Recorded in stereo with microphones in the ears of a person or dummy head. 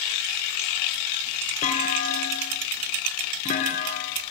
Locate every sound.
1.6 s a clunk: 40° left (ahead or behind), 3 m